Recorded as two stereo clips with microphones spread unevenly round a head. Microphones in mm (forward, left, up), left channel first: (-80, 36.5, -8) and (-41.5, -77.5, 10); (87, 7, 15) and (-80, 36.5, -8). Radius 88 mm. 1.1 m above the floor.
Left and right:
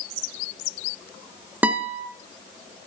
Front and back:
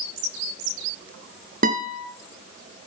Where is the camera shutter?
No camera shutter in this recording.